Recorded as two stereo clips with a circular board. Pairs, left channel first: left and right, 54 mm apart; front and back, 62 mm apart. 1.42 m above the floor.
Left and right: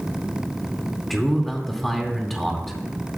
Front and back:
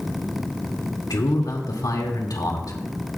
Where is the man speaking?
5° left, 2 m.